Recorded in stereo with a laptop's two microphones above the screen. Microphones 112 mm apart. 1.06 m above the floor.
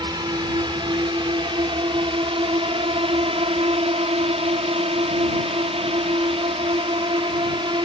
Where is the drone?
40° right (ahead or behind); by 7.9 s 50° right (ahead or behind).